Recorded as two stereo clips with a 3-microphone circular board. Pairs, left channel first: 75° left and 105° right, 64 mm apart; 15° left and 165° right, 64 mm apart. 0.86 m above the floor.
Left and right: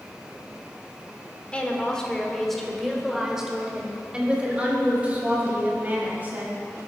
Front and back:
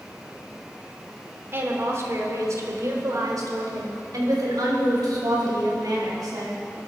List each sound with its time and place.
1.5 s a woman speaking: 145° left, 2.5 m; by 6.6 s 165° right, 5.5 m